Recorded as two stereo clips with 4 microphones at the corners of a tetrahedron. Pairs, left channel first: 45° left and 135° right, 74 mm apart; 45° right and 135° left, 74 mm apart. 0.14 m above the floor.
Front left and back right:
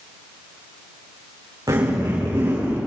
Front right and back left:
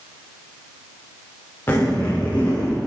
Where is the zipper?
100° right, 6.5 m.